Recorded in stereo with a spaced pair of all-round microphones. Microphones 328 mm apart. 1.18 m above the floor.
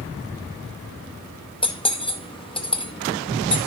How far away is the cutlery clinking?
About 0.8 m.